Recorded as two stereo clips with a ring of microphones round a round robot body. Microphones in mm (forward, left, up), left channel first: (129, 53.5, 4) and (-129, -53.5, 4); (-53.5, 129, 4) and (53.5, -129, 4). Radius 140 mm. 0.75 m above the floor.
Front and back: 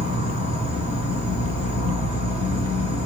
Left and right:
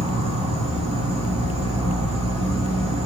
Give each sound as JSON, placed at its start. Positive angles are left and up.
{"t": 0.0, "sound": "an insect", "azimuth_deg": -15, "distance_m": 1.5}